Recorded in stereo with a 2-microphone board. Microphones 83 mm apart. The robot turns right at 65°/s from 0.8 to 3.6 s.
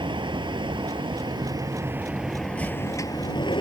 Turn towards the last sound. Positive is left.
turn(degrees=80)